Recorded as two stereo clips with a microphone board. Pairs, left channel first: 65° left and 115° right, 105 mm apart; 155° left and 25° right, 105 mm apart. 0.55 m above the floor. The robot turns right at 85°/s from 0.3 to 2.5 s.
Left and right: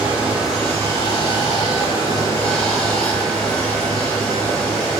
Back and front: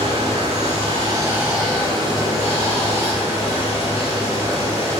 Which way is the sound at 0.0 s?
40° right.